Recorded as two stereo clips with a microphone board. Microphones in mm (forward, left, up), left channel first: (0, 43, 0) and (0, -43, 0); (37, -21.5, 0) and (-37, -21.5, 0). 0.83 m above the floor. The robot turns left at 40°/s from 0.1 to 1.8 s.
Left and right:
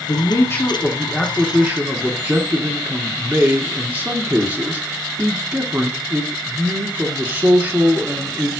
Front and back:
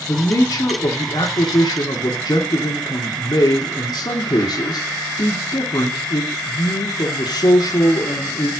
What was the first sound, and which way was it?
A man speaking, 50° left.